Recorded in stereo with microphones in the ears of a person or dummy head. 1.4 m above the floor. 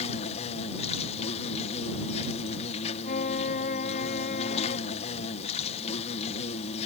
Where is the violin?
50° left (ahead or behind).